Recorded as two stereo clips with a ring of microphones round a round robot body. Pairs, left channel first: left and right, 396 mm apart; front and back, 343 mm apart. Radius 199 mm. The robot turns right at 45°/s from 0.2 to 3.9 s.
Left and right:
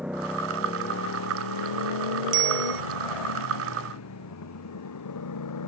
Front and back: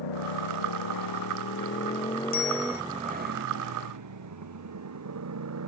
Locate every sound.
0.0 s a motorcycle: straight ahead; by 5.7 s 135° left
2.3 s a bicycle bell: 70° right; by 2.8 s 50° right